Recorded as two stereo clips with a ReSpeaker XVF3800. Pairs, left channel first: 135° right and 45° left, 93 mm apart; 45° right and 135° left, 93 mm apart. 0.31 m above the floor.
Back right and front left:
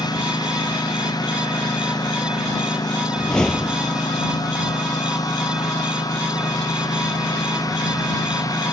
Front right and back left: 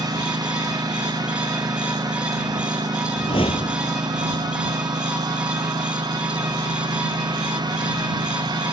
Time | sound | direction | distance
0.0 | a lawn mower | straight behind | ?
3.2 | a whoosh | 55° right | ?